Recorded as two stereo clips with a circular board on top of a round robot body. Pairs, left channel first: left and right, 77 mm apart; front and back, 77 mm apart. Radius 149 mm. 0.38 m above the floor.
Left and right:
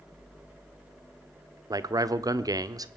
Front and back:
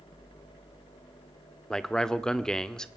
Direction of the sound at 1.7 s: 80° right.